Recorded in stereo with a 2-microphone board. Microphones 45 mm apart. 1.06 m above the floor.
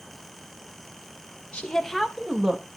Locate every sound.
1.5 s a woman speaking: 30° left (ahead or behind), 0.9 m; by 2.6 s 25° right (ahead or behind), 1.3 m